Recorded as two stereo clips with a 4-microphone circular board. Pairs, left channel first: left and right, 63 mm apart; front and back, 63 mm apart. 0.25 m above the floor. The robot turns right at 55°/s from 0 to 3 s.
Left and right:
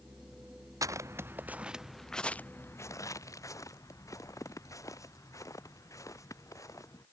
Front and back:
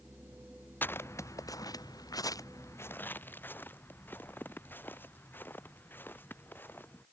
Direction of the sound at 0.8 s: 60° right.